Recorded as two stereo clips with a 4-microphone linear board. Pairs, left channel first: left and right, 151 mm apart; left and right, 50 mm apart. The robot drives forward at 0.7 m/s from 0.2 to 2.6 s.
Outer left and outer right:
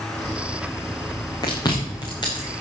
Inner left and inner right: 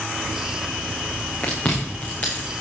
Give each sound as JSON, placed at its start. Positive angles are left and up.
{"t": 1.4, "sound": "chewing", "side_deg": 25, "distance_m": 7.0}